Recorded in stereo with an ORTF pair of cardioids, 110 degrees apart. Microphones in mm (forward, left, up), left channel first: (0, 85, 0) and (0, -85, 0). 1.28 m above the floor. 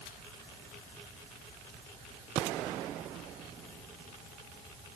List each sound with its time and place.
Only background noise.